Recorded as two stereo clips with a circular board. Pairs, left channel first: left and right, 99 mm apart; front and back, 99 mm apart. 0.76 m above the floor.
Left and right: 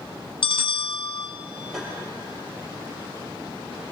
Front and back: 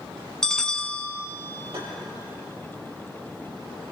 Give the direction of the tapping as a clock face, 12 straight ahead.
6 o'clock.